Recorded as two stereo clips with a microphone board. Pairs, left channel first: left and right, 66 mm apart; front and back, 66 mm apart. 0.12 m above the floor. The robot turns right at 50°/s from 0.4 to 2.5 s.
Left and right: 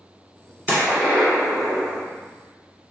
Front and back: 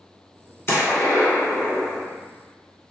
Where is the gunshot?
40° right, 1.7 m; by 2.1 s 30° left, 1.7 m.